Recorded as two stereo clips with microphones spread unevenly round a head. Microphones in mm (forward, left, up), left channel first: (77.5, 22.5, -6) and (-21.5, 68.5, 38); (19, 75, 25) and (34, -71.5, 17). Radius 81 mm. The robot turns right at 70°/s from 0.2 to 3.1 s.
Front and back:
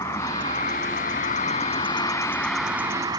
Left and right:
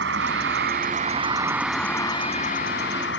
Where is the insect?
100° right; by 3.2 s 100° left.